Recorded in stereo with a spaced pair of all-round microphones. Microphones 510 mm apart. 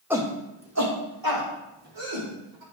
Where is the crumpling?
No crumpling in this recording.